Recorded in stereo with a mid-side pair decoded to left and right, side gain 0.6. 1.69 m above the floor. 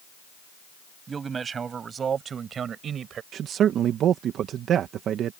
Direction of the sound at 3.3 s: 55° right.